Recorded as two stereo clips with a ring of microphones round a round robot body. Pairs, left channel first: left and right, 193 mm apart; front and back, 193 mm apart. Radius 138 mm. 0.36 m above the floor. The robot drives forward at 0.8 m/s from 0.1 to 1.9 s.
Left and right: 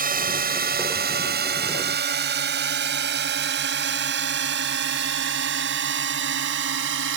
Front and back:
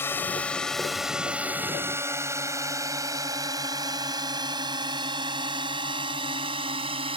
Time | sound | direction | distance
0.0 | a drone | 75° right | ?